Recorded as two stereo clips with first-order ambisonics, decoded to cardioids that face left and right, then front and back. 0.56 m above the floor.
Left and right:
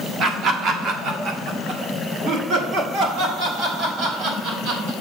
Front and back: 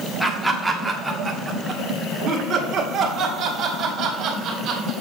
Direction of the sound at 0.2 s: 80° right.